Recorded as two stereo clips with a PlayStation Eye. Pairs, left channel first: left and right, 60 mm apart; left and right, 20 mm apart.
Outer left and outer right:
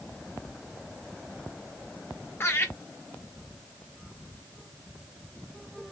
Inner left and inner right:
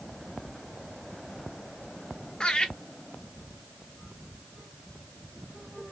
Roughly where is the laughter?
Left.